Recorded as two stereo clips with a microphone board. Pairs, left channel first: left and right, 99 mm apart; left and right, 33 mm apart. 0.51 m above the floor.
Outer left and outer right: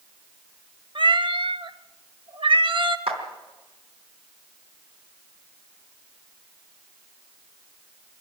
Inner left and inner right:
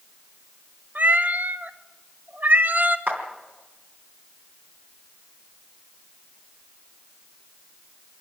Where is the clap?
80° right, 3.5 m.